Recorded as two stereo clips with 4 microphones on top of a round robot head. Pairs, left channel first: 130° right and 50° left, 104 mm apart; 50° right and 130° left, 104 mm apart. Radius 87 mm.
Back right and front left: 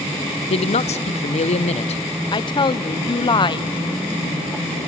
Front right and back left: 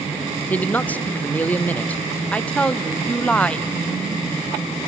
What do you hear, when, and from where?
0.5 s a man speaking: 125° right, 0.7 m
2.3 s a woman speaking: 125° right, 0.7 m